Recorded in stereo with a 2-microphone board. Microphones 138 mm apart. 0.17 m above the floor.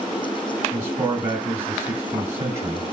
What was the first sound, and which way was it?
A man speaking, 20° right (ahead or behind).